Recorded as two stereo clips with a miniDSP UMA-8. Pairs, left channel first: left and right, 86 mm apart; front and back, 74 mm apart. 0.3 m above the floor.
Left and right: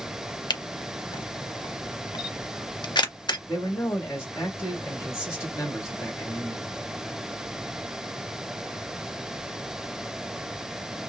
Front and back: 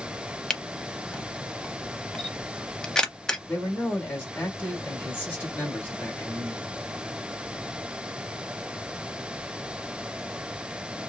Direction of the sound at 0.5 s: 80° left.